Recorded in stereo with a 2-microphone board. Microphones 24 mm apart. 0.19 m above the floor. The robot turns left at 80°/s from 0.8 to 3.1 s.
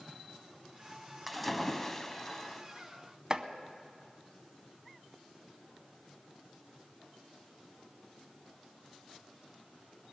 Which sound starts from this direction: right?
Chopping, at 3.3 s.